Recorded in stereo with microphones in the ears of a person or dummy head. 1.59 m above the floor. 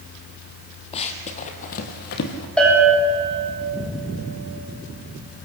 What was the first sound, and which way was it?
Running footsteps, 30° left (ahead or behind).